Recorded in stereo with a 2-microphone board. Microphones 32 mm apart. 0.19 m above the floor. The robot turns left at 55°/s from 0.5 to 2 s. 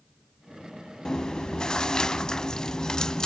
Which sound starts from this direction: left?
Chewing, at 1.1 s.